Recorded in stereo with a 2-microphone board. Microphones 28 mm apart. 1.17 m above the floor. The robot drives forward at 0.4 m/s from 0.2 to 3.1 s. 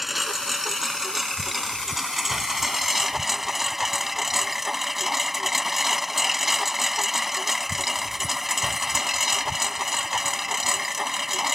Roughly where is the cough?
No cough in this recording.